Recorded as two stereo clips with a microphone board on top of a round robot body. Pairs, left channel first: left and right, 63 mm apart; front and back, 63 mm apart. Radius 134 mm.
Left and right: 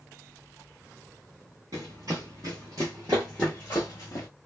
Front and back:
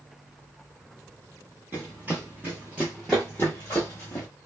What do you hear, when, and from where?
1.7 s running footsteps: 120° right, 1.0 m; by 4.3 s 50° left, 0.8 m